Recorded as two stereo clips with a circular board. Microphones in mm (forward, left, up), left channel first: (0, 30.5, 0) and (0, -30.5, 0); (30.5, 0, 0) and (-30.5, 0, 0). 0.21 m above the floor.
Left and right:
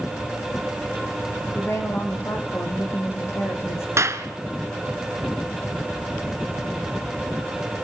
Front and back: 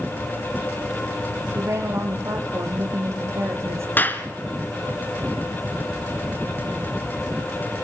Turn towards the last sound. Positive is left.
turn(degrees=-55)